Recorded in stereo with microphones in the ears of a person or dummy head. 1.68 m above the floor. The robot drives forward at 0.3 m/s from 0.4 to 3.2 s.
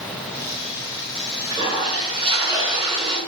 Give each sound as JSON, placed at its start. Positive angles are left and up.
{"t": 1.5, "sound": "a toilet flushing", "side_deg": -25, "distance_m": 3.5}